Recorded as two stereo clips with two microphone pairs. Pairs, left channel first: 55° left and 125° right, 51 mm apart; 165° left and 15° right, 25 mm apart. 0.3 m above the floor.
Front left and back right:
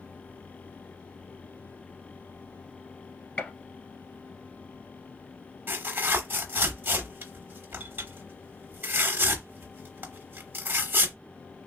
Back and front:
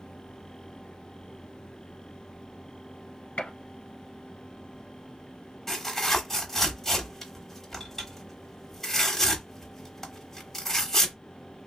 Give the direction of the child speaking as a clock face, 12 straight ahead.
I don't hear a child speaking.